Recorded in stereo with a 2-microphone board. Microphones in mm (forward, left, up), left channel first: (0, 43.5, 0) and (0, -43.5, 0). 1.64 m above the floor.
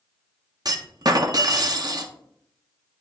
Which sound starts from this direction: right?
A clunk, at 0.7 s.